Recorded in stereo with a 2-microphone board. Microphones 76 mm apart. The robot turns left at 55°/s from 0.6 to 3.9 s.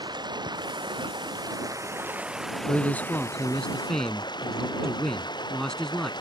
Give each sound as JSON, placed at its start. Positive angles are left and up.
{"t": 0.0, "sound": "running water", "azimuth_deg": -70}
{"t": 2.7, "sound": "a man speaking", "side_deg": 25}